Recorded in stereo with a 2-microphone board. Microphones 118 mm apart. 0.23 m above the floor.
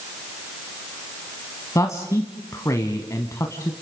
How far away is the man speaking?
About 1.4 m.